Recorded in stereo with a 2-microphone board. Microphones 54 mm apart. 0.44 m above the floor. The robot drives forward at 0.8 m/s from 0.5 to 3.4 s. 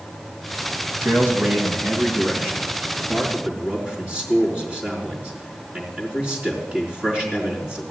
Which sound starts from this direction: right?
A man speaking, at 1.0 s.